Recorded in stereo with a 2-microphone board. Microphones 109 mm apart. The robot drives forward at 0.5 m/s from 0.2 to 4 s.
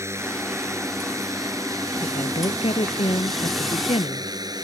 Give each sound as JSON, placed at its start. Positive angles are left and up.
{"t": 0.0, "sound": "a drone", "side_deg": -25}
{"t": 2.0, "sound": "a woman speaking", "side_deg": 65}